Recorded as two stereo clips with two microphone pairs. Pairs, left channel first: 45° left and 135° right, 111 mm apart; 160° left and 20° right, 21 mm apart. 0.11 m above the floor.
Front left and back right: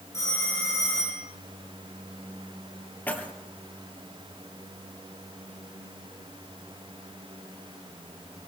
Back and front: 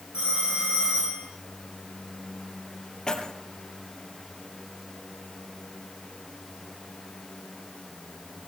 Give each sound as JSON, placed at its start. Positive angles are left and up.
{"t": 0.1, "sound": "a phone ringing", "azimuth_deg": -15, "distance_m": 8.5}
{"t": 3.1, "sound": "keys jangling", "azimuth_deg": 120, "distance_m": 1.9}